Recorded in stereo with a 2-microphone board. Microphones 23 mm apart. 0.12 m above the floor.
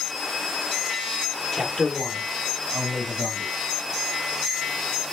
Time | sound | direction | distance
1.5 | a man speaking | centre (ahead or behind) | 3 m